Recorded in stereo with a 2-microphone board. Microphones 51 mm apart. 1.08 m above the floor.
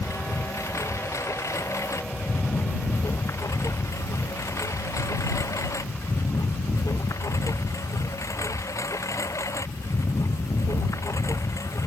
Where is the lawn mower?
70° left (ahead or behind); by 11.9 s 80° left.